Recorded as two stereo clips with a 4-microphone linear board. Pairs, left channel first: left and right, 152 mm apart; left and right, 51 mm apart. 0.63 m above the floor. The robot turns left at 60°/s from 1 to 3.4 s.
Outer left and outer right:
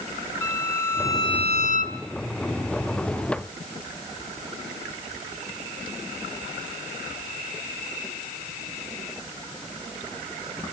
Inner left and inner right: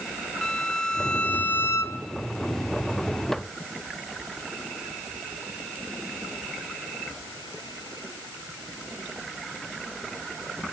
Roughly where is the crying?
I don't hear crying.